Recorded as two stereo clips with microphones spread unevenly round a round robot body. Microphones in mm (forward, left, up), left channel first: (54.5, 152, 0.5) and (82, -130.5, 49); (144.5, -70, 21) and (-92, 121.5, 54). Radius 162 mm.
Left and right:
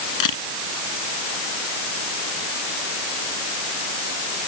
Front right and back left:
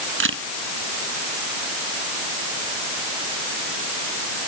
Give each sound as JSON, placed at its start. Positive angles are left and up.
{"t": 0.2, "sound": "a camera shutter", "azimuth_deg": 90}